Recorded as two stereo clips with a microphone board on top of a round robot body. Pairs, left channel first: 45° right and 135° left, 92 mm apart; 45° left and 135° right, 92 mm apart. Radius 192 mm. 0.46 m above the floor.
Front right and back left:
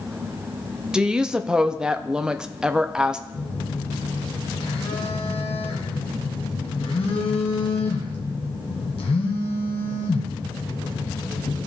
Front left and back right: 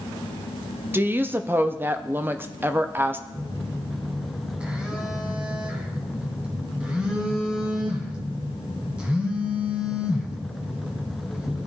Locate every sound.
0.9 s a woman speaking: 155° right, 0.8 m
3.3 s a phone buzzing: 60° right, 1.5 m